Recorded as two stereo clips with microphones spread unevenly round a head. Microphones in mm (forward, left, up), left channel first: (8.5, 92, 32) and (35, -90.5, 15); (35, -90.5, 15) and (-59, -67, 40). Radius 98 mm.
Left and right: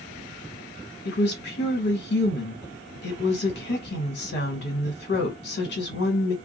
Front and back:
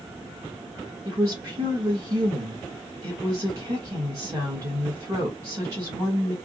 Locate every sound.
1.1 s a woman speaking: 95° left, 1.3 m